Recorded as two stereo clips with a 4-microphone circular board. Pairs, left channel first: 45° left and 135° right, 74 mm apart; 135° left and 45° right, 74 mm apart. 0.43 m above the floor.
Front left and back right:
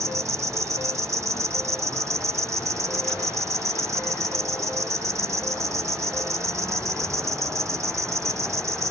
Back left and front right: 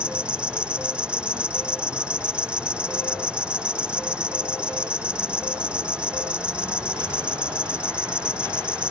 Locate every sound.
0.0 s an insect: 115° right